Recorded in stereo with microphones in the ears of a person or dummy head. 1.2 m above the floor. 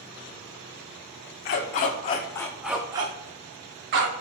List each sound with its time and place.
1.4 s a dog barking: 45° left (ahead or behind), 1.1 m; by 4.1 s 55° right (ahead or behind), 1.2 m